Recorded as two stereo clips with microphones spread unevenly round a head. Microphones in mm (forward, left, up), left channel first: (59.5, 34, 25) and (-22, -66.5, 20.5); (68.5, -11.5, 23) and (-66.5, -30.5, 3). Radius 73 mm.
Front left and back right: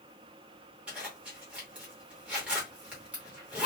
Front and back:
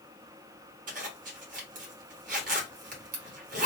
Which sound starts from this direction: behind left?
A zipper, at 0.9 s.